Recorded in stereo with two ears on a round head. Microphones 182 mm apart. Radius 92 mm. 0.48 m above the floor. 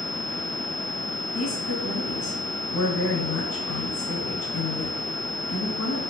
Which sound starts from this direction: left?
A woman speaking, at 1.3 s.